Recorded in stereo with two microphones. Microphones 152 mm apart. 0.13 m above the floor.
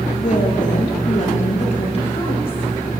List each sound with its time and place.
0.1 s a woman speaking: 55° left (ahead or behind), 2.5 m; by 3.0 s 30° left (ahead or behind), 4 m